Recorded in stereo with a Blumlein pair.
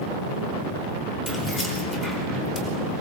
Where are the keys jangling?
10° left, 4.5 m.